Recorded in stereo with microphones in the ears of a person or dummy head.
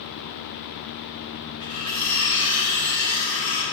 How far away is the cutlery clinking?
About 0.8 m.